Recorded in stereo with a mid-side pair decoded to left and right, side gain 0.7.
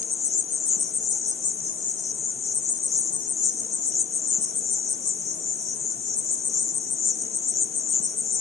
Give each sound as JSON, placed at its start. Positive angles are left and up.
{"t": 0.0, "sound": "an insect", "azimuth_deg": 35, "distance_m": 1.3}